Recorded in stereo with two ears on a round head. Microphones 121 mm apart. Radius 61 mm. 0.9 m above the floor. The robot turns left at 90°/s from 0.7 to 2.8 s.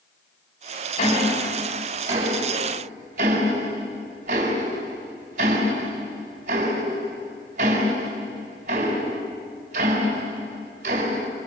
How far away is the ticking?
About 4 m.